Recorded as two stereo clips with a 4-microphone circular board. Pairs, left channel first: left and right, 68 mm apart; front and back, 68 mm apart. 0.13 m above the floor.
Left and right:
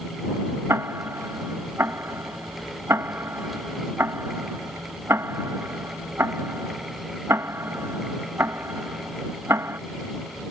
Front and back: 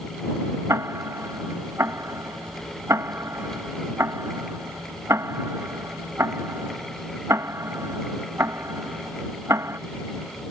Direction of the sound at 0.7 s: 140° right.